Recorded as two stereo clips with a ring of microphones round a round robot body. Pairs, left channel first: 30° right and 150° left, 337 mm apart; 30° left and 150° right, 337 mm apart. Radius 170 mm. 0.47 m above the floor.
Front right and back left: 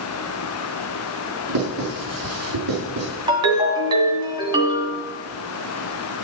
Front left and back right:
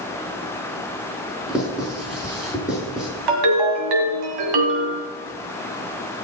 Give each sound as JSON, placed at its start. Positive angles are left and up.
{"t": 1.5, "sound": "writing", "azimuth_deg": 120, "distance_m": 6.0}
{"t": 3.3, "sound": "a ringtone", "azimuth_deg": -135, "distance_m": 2.0}